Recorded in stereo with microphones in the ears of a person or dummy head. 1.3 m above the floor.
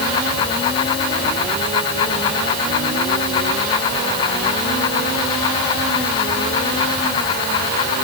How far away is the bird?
No bird in this recording.